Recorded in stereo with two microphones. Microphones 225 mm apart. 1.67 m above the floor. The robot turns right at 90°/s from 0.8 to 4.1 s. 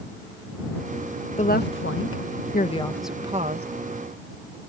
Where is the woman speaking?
30° left; by 3.7 s 125° right.